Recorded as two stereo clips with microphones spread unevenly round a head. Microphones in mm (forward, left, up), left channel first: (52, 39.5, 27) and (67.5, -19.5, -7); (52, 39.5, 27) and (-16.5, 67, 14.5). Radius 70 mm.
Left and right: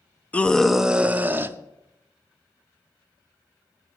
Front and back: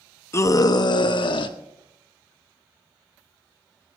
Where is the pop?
No pop in this recording.